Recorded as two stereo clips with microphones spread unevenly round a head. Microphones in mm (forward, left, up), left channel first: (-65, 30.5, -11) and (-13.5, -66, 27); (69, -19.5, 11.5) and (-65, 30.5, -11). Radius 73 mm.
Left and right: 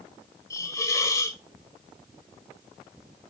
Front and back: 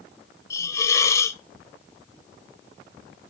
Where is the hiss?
40° left, 0.5 m.